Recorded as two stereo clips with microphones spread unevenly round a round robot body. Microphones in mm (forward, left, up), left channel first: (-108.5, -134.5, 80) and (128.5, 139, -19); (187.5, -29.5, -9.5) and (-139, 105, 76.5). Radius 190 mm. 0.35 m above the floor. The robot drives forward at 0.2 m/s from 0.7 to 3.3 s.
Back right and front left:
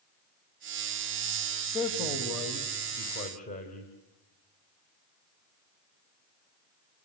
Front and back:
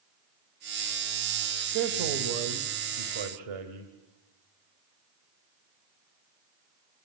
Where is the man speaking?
150° left, 2.5 m; by 3.9 s 155° left, 2.5 m.